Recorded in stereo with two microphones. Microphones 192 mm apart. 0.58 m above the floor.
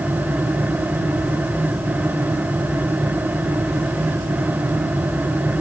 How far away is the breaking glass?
No breaking glass in this recording.